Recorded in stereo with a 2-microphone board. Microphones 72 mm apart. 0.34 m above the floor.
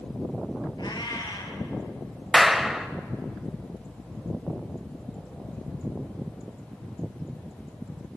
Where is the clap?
5° right (ahead or behind), 1.3 m.